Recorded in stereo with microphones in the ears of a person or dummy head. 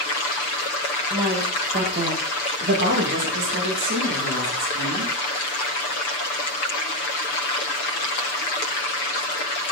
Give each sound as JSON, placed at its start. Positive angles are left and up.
{"t": 1.1, "sound": "a woman speaking", "side_deg": -20, "distance_m": 1.8}